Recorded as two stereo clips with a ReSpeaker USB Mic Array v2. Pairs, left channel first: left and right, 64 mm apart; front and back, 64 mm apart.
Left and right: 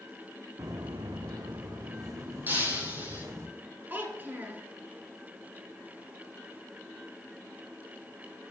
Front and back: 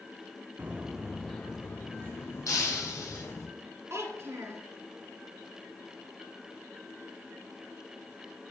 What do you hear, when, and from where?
0.6 s footsteps: 115° right, 0.9 m; by 3.5 s 45° right, 3 m
2.5 s breaking glass: 30° right, 2.5 m
3.9 s a child speaking: 145° right, 1.7 m